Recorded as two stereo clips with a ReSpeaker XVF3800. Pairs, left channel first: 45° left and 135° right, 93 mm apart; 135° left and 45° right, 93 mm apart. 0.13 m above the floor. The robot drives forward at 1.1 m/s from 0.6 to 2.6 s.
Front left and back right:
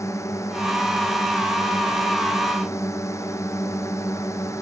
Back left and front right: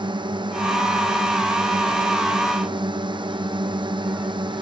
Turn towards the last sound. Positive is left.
turn(degrees=-15)